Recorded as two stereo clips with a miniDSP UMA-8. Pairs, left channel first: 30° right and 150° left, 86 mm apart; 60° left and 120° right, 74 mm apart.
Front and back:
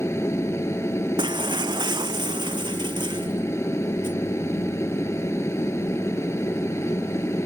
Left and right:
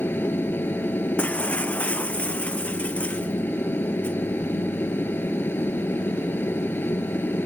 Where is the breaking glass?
130° left.